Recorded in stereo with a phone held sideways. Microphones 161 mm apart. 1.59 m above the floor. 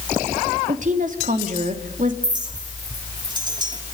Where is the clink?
25° right (ahead or behind), 2.5 m.